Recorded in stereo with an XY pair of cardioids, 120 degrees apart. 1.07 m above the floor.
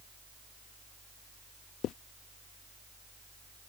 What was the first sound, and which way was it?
A fan, 10° right.